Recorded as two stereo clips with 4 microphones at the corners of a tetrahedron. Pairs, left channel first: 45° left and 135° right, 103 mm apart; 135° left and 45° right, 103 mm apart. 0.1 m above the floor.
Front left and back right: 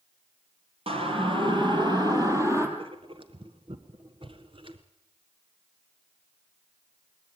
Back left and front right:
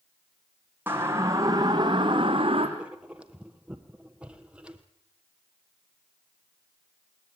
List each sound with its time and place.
0.9 s a siren: 115° right, 3 m; by 2.7 s 75° right, 3 m
2.8 s writing: 125° right, 1.3 m